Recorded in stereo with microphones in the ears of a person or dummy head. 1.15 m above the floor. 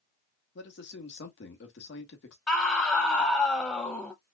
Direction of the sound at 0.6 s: 60° left (ahead or behind).